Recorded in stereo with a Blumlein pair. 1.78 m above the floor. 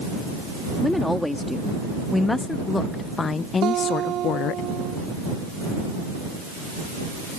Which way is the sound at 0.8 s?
5° left.